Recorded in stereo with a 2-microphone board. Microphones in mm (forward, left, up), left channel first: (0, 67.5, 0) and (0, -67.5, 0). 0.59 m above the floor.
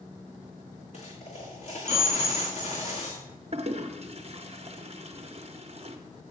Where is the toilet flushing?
45° right (ahead or behind), 0.6 m.